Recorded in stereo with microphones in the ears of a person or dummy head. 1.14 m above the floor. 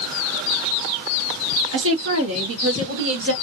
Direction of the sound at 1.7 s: 55° right (ahead or behind).